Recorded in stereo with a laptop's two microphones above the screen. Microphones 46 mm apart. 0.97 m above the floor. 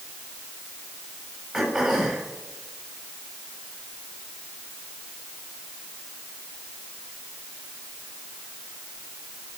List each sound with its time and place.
1.5 s throat clearing: 15° right (ahead or behind), 6.5 m